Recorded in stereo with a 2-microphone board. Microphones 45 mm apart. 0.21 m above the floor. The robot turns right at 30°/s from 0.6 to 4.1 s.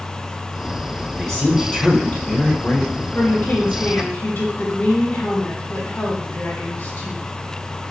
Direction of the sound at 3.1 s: 55° left (ahead or behind).